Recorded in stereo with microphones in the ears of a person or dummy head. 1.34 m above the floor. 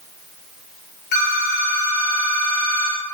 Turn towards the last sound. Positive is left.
turn(degrees=55)  # may be behind; listen again after turning